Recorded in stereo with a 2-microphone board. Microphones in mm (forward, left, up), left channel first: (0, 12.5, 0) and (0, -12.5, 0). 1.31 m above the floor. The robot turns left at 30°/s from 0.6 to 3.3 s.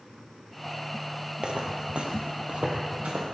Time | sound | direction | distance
1.4 | footsteps | 40° right (ahead or behind) | 1.9 m